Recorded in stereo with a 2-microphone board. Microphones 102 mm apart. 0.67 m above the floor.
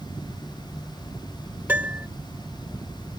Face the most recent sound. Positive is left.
turn(degrees=-15)  # may be behind; listen again after turning